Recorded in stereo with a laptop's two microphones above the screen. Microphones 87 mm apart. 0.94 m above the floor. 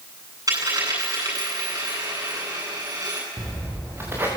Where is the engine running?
No engine running in this recording.